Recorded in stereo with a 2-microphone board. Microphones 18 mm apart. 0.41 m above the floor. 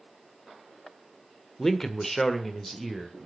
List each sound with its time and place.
1.6 s a man speaking: 25° left (ahead or behind), 1.1 m; by 3.2 s 10° left (ahead or behind), 1.4 m